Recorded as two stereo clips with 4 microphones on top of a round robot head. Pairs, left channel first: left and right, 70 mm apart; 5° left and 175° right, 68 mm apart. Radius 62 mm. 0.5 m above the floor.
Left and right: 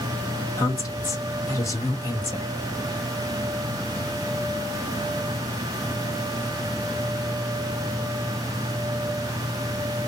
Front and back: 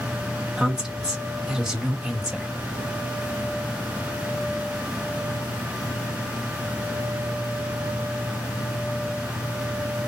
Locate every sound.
0.6 s a woman speaking: 110° left, 1.5 m